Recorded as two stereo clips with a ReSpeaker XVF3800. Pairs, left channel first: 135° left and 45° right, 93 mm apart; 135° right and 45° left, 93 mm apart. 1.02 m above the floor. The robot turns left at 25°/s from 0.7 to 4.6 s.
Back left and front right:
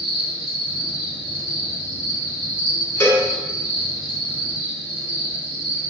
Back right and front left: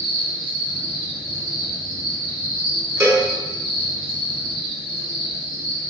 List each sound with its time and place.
0.0 s an insect: 55° right, 1.5 m; by 5.9 s 150° right, 1.5 m
3.0 s a cowbell: 90° left, 0.9 m; by 3.3 s 85° left, 0.9 m